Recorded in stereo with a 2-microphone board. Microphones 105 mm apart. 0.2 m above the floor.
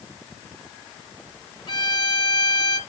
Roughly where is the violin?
Left.